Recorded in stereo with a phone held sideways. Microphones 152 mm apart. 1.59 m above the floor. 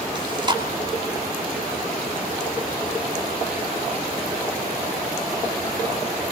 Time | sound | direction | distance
0.1 | chewing | 30° right (ahead or behind) | 3 m